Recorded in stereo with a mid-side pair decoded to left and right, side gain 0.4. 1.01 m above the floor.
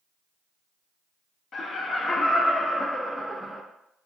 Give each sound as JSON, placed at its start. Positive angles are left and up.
{"t": 1.5, "sound": "laughter", "azimuth_deg": 55, "distance_m": 1.1}